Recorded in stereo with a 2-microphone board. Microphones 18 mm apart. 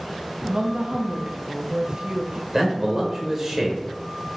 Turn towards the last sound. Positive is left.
turn(degrees=-25)  # may be behind; listen again after turning